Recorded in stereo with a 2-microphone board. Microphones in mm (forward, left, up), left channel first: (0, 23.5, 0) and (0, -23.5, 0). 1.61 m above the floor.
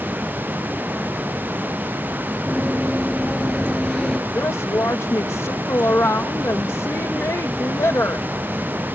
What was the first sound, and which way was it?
Running footsteps, 20° right (ahead or behind).